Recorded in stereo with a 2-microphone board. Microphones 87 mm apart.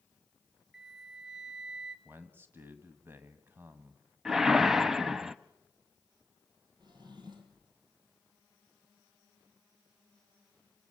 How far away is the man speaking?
About 1.5 m.